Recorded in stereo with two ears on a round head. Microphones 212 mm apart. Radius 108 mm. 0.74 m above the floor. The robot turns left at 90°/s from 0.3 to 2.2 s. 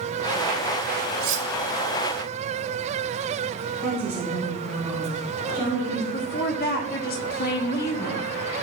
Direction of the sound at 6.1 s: 40° left (ahead or behind).